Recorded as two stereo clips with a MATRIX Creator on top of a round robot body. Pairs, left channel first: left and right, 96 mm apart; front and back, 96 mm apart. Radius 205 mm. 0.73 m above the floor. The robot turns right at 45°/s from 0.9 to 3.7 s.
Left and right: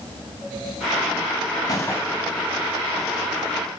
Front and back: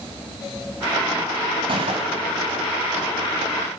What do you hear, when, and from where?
1.7 s a gunshot: 145° left, 0.8 m; by 2.4 s 175° left, 0.8 m